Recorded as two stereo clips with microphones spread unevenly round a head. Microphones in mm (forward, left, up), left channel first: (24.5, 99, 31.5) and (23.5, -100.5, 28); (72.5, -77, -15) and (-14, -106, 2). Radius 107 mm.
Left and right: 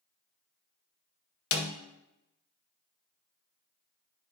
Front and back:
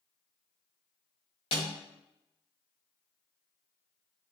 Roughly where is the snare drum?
Left.